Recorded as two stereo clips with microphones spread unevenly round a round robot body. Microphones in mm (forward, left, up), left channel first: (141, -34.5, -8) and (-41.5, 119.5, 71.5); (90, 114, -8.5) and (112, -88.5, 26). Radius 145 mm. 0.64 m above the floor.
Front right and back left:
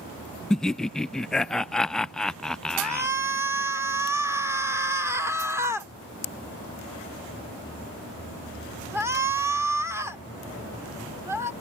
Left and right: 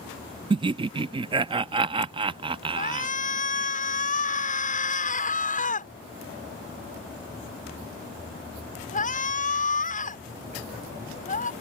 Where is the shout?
55° left.